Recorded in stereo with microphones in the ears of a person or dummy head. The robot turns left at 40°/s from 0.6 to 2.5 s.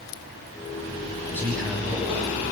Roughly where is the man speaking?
Ahead.